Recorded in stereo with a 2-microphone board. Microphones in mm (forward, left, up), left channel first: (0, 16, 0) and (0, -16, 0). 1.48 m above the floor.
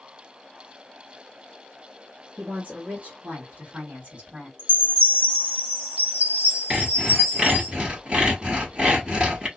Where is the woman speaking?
65° right (ahead or behind), 1.1 m; by 4.5 s 40° right (ahead or behind), 2 m.